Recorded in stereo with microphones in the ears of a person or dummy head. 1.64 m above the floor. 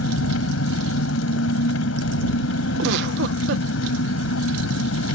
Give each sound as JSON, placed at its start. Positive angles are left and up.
{"t": 0.0, "sound": "an engine running", "side_deg": 85}
{"t": 2.8, "sound": "a giggle", "side_deg": -75}